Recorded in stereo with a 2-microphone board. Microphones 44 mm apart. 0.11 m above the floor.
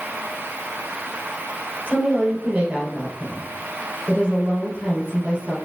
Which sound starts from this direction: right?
A woman speaking, at 1.9 s.